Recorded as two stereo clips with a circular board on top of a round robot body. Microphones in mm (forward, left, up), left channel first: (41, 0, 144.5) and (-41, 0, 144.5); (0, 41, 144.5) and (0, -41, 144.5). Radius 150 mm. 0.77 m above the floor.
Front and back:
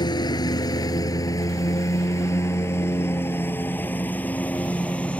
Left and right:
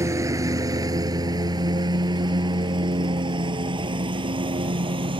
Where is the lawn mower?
35° right; by 5.2 s 75° right.